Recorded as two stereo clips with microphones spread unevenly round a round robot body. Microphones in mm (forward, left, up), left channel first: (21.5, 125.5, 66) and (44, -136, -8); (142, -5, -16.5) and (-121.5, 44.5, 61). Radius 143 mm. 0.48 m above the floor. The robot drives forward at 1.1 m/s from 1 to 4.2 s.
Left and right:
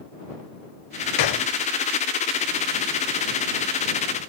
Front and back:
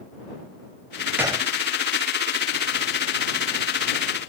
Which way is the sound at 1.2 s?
85° left.